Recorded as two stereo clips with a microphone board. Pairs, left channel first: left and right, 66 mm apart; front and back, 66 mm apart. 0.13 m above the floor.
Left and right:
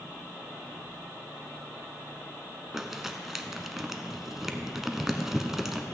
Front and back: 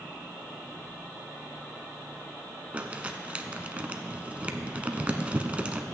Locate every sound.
2.7 s crumpling: 165° right, 0.6 m